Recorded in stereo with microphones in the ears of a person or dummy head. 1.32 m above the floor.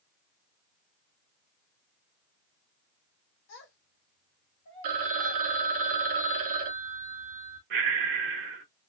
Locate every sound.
3.5 s a child speaking: 60° left (ahead or behind), 1.2 m; by 5.5 s 10° left (ahead or behind), 0.9 m
4.8 s a phone ringing: 45° right (ahead or behind), 0.7 m
7.7 s breathing: 45° right (ahead or behind), 0.8 m